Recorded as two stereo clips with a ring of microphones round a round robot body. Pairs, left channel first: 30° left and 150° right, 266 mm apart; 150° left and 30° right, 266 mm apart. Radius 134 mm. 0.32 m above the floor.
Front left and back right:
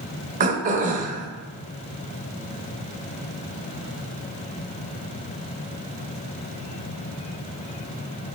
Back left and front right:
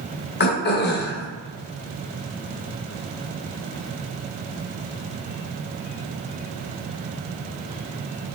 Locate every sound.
0.4 s throat clearing: 165° left, 0.6 m